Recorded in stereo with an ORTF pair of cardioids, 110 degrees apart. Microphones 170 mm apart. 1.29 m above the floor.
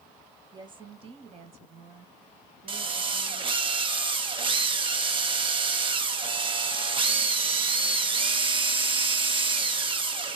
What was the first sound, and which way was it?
A woman speaking, 25° right.